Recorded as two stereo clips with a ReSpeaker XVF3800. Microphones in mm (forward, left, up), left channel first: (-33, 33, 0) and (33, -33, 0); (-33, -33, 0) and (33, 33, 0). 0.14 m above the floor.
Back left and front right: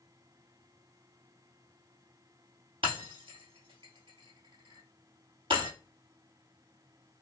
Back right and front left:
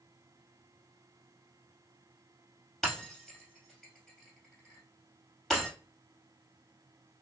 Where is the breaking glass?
45° right, 2.0 m.